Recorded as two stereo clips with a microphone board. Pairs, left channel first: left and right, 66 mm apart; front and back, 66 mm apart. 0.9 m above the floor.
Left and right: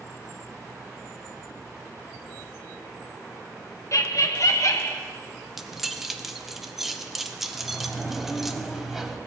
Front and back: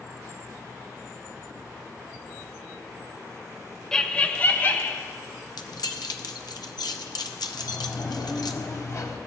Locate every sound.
3.9 s laughter: 80° left, 0.6 m; by 5.0 s 55° left, 1.1 m
5.6 s keys jangling: 5° right, 0.7 m
7.5 s a sliding door: 10° right, 1.0 m